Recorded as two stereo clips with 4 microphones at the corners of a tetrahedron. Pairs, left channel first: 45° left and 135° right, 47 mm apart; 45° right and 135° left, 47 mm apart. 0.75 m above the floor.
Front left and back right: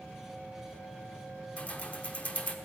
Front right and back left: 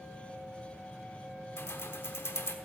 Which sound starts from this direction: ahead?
Keys jangling, at 1.6 s.